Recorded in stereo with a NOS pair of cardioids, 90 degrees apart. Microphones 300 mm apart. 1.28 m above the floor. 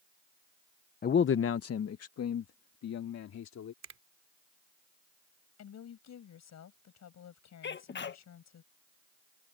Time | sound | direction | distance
1.0 | a man speaking | 30° left | ?
3.8 | a finger snap | 60° right | ?
5.6 | a woman speaking | 60° left | ?
7.6 | a sneeze | 40° left | ?